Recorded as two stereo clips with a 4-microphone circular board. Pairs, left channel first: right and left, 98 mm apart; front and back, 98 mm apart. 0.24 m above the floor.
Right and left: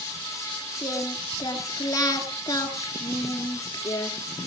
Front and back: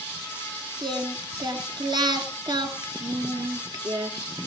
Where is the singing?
140° right, 1.7 m.